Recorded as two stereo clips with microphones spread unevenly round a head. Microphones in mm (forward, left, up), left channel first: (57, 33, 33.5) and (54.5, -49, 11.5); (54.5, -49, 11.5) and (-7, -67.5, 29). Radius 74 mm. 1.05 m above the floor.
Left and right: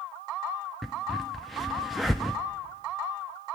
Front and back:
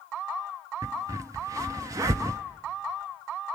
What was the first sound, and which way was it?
A crack, 165° left.